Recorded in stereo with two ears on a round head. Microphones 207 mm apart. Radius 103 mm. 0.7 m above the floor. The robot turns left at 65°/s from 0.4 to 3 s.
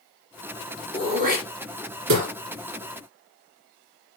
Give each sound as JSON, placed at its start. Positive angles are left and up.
{"t": 0.9, "sound": "throat clearing", "side_deg": -15, "distance_m": 2.5}